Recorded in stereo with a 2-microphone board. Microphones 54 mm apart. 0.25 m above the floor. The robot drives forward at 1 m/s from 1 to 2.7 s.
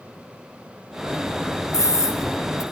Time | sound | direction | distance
1.7 | a scream | 70° left (ahead or behind) | 4 m